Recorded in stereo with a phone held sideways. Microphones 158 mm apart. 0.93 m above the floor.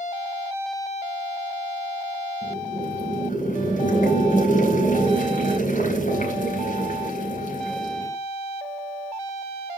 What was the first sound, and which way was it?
Boiling, 60° left (ahead or behind).